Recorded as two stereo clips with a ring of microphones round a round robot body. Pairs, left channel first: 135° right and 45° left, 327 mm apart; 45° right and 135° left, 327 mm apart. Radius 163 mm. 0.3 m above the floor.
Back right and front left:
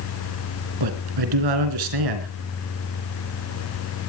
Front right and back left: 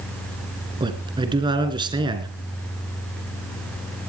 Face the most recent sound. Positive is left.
turn(degrees=60)